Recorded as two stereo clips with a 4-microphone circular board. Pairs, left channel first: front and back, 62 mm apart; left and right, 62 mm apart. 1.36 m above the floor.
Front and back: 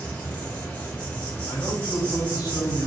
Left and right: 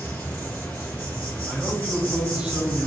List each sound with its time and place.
0.0 s an insect: 50° left, 0.8 m
1.5 s a man speaking: 15° right, 0.6 m